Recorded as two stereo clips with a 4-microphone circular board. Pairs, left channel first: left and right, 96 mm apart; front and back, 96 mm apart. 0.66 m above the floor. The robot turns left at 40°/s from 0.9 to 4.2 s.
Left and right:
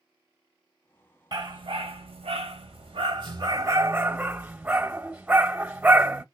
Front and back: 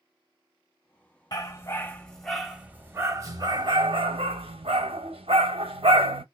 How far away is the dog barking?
About 1.1 m.